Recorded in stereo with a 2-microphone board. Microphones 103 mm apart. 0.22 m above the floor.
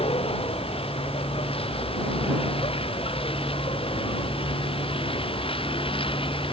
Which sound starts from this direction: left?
A vehicle, at 0.0 s.